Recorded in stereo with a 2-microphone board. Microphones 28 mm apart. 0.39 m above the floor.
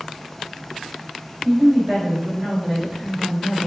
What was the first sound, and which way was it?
A woman speaking, 50° right (ahead or behind).